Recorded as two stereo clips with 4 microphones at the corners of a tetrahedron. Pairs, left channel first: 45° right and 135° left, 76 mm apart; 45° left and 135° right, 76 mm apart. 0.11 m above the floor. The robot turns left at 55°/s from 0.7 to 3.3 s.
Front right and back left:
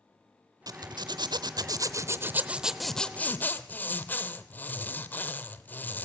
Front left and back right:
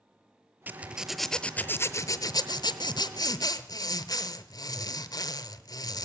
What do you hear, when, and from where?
0.7 s a zipper: 160° left, 0.7 m; by 6.0 s 20° left, 0.7 m